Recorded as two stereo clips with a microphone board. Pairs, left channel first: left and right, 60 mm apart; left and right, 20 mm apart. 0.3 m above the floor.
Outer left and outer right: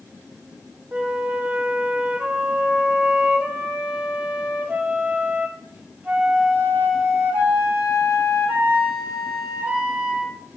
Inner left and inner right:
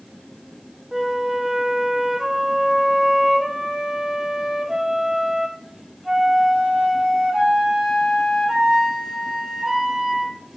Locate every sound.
0.9 s a flute: 30° right (ahead or behind), 0.6 m